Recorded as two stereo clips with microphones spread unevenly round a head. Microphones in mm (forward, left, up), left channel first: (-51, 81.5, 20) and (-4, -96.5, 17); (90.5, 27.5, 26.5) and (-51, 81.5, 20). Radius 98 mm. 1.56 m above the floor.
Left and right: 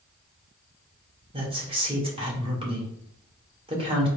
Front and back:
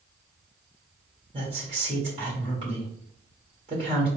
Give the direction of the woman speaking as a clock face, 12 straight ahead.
5 o'clock.